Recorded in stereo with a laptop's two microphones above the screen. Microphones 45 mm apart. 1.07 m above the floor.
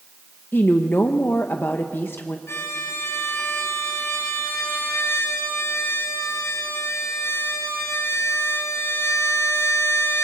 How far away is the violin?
About 4 m.